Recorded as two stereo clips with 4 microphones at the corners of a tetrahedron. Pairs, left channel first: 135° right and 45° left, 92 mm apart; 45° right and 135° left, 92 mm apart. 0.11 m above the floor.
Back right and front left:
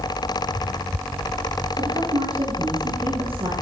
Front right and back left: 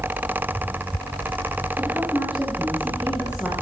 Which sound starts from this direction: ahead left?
A woman speaking, at 1.8 s.